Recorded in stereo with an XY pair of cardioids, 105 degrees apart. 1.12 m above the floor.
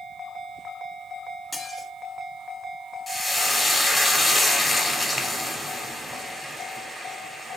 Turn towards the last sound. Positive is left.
turn(degrees=10)